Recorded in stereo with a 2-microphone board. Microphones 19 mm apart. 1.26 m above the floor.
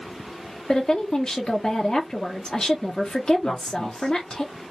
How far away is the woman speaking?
About 0.6 m.